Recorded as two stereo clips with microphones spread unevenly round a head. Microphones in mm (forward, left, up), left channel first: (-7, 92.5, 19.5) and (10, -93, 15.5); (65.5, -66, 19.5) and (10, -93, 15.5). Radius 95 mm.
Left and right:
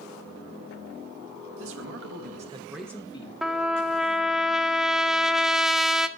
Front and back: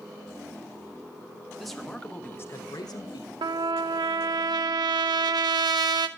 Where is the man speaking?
65° right, 1.8 m; by 3.3 s 35° left, 1.3 m.